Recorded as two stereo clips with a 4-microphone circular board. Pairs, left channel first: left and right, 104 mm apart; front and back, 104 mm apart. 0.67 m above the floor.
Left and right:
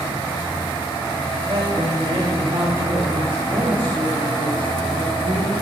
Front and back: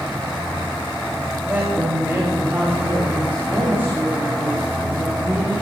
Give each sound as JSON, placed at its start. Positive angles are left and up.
{"t": 1.5, "sound": "a woman speaking", "azimuth_deg": -115, "distance_m": 3.0}